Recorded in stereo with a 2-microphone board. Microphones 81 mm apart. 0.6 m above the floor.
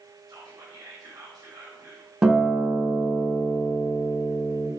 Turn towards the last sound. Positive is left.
turn(degrees=-10)  # may be behind; listen again after turning